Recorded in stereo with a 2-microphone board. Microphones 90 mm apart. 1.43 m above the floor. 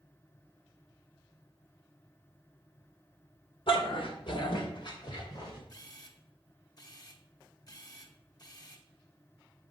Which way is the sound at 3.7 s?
65° left (ahead or behind).